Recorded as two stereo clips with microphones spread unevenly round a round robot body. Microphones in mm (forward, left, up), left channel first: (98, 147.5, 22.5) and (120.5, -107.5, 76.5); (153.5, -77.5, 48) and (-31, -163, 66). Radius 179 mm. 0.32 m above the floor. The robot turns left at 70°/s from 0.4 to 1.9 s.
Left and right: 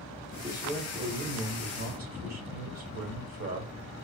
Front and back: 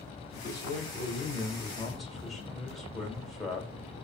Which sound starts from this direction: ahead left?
A man speaking, at 0.3 s.